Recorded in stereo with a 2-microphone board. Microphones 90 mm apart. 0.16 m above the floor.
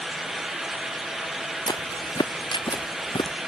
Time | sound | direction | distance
1.7 | footsteps | 50° left (ahead or behind) | ?